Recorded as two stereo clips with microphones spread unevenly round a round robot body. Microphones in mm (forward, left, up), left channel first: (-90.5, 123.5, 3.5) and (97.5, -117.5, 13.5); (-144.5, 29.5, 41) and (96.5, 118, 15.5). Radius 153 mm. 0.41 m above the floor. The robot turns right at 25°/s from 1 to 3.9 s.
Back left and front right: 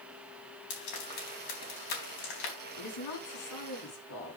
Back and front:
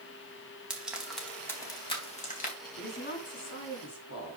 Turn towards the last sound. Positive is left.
turn(degrees=170)